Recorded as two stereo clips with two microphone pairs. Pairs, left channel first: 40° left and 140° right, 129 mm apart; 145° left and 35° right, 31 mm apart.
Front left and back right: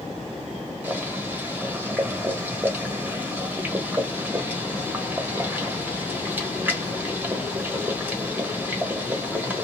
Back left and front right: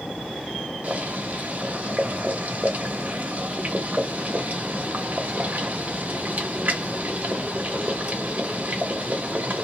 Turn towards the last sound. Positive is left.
turn(degrees=-65)